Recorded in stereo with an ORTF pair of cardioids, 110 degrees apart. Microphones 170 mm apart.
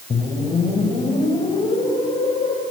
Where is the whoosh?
35° left, 4 m.